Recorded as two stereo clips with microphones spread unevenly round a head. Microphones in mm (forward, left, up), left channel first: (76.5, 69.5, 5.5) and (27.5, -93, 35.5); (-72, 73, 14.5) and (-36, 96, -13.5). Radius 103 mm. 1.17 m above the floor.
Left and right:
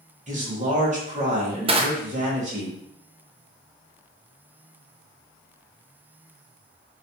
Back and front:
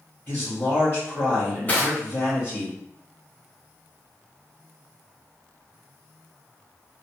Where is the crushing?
55° right, 0.5 m.